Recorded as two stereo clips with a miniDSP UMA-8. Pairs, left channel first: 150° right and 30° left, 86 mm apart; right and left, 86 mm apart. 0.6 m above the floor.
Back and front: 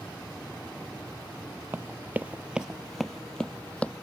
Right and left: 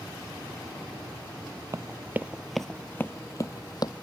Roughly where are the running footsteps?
Left.